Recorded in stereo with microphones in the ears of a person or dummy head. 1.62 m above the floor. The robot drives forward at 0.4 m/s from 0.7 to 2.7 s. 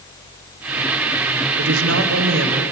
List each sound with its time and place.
1.6 s a woman speaking: 85° right, 1.4 m; by 2.6 s 75° right (ahead or behind), 1.4 m